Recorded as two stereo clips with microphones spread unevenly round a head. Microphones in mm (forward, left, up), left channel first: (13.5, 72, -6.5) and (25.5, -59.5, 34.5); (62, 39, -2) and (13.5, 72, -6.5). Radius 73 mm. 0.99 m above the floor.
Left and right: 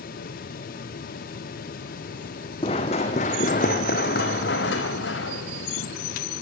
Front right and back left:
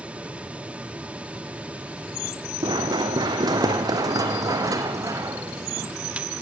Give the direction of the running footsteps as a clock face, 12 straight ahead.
7 o'clock.